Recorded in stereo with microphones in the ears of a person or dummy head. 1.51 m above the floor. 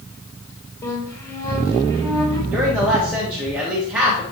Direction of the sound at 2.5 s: 5° right (ahead or behind).